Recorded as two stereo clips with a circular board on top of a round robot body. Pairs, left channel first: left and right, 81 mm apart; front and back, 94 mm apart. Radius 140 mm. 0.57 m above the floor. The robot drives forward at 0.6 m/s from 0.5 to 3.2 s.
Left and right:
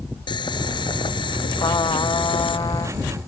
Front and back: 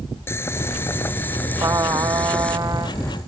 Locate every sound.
0.3 s boiling: 65° left; by 2.6 s 80° left
1.6 s a trumpet: 125° left